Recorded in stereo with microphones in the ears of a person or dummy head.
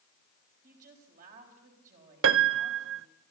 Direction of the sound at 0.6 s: 45° right (ahead or behind).